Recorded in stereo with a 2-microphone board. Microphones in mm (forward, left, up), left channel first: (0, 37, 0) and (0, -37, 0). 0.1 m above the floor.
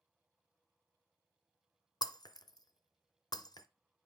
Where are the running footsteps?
I don't hear running footsteps.